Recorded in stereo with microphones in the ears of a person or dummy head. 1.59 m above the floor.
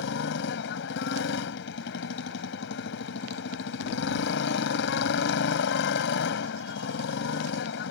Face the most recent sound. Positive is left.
turn(degrees=65)  # may be behind; listen again after turning